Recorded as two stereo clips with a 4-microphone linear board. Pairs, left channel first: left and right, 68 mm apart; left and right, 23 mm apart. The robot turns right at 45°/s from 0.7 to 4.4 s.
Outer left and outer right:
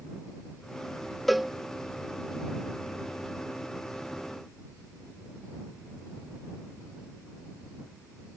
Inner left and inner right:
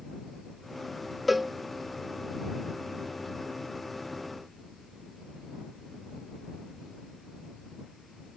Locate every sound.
1.3 s a cowbell: centre (ahead or behind); by 1.5 s 5° right (ahead or behind)